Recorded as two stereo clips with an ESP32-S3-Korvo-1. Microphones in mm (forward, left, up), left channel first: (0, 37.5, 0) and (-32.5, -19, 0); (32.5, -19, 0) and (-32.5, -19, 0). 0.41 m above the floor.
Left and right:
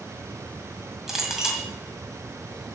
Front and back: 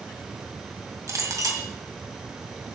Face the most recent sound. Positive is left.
turn(degrees=160)